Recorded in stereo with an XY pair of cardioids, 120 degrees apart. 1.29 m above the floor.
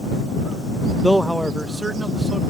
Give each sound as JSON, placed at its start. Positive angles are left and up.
{"t": 1.0, "sound": "a man speaking", "azimuth_deg": 5}